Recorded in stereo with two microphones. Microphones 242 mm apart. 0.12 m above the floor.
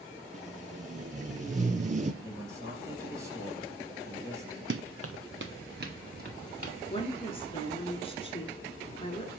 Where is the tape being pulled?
35° right (ahead or behind), 0.8 m.